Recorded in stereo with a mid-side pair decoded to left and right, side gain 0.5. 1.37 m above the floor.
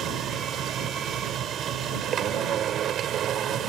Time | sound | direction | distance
0.0 | a machine running | 60° right | ?